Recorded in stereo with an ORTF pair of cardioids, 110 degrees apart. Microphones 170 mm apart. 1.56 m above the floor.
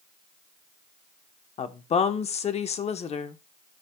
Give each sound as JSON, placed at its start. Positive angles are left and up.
{"t": 1.6, "sound": "a woman speaking", "azimuth_deg": 40, "distance_m": 1.0}